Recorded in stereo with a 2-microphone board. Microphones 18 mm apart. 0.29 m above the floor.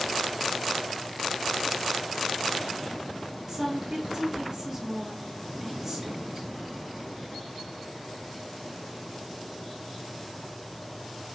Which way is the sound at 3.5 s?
20° right (ahead or behind).